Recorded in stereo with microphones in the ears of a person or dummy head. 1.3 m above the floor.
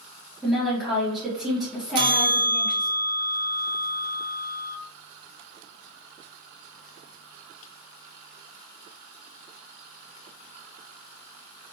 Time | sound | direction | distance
0.4 | a woman speaking | centre (ahead or behind) | 0.9 m
1.9 | a bell | 30° right (ahead or behind) | 0.7 m